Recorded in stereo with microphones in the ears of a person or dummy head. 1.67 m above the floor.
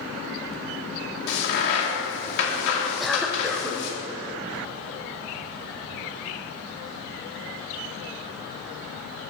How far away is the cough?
About 1.0 m.